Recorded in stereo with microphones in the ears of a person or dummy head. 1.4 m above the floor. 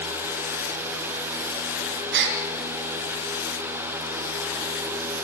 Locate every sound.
2.1 s a gasp: 65° right (ahead or behind), 3 m